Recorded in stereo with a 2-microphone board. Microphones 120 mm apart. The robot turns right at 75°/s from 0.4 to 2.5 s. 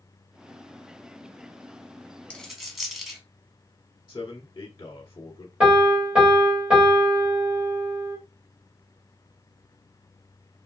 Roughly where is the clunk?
No clunk in this recording.